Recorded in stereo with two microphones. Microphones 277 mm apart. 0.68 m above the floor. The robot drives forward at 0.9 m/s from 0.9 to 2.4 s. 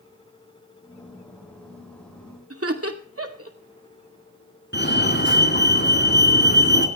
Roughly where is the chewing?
No chewing in this recording.